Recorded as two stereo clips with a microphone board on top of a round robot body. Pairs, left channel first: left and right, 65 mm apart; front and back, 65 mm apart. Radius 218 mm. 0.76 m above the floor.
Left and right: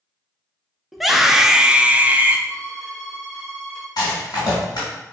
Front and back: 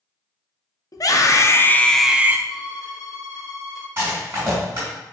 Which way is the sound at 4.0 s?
120° left.